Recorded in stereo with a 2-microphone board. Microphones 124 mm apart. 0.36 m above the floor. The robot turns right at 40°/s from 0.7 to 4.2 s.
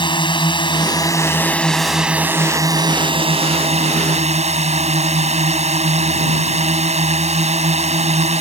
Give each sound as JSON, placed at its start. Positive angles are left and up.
{"t": 0.0, "sound": "a drone", "azimuth_deg": 135}